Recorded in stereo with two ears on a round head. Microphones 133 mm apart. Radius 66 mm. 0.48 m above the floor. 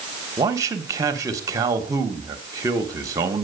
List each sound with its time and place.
0.4 s a man speaking: 20° right (ahead or behind), 1.2 m